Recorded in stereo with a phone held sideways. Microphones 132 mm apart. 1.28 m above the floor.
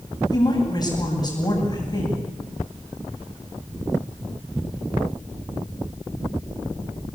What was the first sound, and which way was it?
A woman speaking, 30° left (ahead or behind).